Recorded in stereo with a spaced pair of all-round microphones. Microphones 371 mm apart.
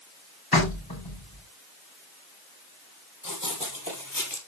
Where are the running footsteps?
55° left (ahead or behind), 3.5 m.